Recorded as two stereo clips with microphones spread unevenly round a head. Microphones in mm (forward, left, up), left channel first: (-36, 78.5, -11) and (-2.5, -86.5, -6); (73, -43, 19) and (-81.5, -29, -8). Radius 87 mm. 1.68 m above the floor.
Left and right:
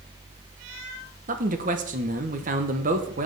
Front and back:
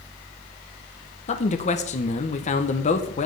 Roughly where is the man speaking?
Ahead right.